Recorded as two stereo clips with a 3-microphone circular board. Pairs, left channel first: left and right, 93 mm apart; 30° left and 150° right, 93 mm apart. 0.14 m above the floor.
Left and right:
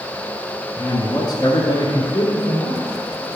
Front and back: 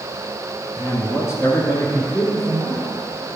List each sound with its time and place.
0.8 s a man speaking: 70° left, 1.3 m; by 2.9 s 80° left, 2.5 m